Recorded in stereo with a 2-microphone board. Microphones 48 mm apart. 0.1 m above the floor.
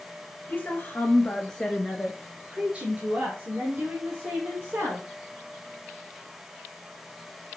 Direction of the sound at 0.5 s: 40° left (ahead or behind).